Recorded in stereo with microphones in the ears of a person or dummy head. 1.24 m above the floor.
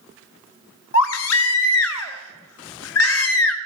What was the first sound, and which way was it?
A baby crying, 85° left.